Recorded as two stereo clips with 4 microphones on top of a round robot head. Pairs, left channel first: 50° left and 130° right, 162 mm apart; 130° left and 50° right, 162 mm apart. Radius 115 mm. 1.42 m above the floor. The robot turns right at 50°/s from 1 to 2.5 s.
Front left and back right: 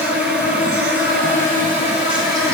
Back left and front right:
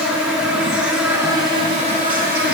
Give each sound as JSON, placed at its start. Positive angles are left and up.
{"t": 0.0, "sound": "an insect", "azimuth_deg": -135, "distance_m": 1.6}